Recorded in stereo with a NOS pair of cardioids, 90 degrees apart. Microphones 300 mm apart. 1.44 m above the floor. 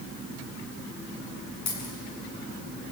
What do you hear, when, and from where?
1.7 s a dropped coin: 65° left, 8 m